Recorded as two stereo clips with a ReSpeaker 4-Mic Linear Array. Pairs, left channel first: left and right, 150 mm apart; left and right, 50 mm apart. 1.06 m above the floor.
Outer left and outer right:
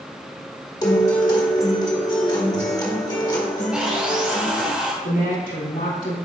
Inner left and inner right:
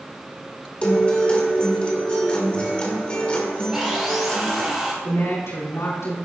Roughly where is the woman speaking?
Left.